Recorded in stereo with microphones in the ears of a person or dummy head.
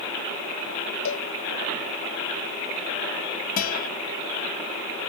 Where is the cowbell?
80° left.